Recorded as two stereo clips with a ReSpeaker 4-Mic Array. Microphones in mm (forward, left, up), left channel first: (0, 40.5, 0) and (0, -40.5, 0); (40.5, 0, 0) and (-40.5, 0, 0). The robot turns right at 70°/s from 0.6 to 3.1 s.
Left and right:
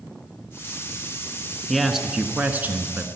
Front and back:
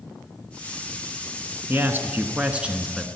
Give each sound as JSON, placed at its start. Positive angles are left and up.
{"t": 1.7, "sound": "a man speaking", "azimuth_deg": 170, "distance_m": 1.1}